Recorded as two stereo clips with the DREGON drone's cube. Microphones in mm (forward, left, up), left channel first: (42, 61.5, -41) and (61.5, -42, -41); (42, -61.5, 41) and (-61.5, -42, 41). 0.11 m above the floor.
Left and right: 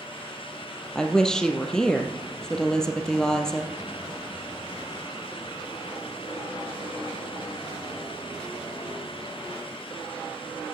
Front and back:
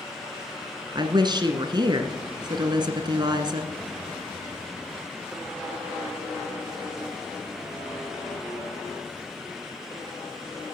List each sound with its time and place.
0.9 s a woman speaking: straight behind, 1.5 m